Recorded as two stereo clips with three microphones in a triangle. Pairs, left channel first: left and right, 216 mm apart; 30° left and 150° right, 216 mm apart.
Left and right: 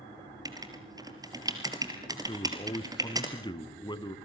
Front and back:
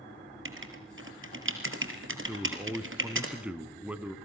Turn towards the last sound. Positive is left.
turn(degrees=135)